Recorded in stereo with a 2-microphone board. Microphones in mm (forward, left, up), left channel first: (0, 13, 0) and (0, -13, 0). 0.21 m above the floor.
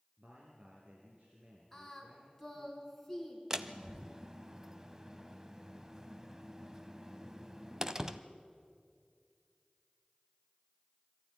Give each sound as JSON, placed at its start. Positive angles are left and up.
{"t": 0.2, "sound": "a man speaking", "side_deg": -50, "distance_m": 3.5}
{"t": 1.7, "sound": "singing", "side_deg": 5, "distance_m": 3.0}
{"t": 3.5, "sound": "a door slam", "side_deg": -20, "distance_m": 0.8}